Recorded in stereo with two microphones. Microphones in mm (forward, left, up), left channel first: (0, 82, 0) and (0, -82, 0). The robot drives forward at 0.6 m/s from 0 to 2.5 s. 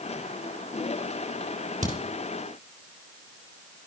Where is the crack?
50° right (ahead or behind), 3.5 m.